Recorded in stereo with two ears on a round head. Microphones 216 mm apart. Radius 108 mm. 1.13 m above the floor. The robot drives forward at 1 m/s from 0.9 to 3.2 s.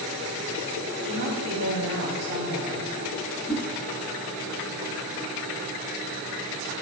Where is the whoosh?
10° left (ahead or behind), 2 m.